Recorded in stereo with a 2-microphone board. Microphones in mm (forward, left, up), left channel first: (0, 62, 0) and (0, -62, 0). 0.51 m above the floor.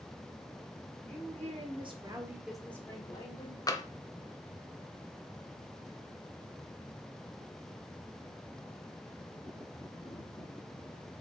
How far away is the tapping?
About 0.7 m.